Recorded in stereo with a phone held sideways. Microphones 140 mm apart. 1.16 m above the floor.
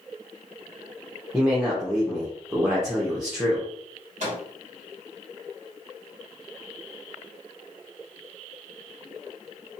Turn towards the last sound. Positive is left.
turn(degrees=-55)  # may be behind; listen again after turning